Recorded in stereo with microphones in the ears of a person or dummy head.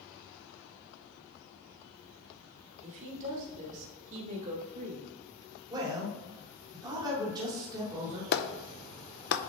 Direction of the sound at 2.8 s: 40° right (ahead or behind).